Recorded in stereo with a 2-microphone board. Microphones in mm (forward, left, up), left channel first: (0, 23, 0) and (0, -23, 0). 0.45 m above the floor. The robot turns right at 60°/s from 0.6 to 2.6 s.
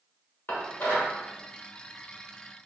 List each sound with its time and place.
0.5 s dishes clattering: 50° left (ahead or behind), 1.1 m; by 1.1 s 55° left (ahead or behind), 1.1 m